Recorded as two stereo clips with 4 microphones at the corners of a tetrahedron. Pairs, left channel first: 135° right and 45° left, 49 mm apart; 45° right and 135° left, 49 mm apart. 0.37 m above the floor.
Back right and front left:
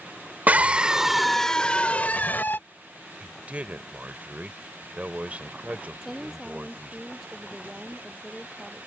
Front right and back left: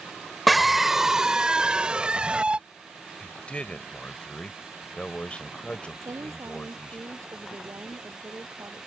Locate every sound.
0.5 s a scream: 45° left; by 2.6 s 165° right
3.2 s a man speaking: straight ahead
6.0 s a woman speaking: 130° left